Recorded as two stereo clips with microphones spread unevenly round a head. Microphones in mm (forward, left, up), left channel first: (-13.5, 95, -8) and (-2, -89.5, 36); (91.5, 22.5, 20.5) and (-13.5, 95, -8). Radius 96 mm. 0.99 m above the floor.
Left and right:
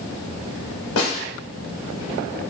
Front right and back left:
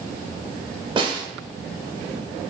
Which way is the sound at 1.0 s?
90° left.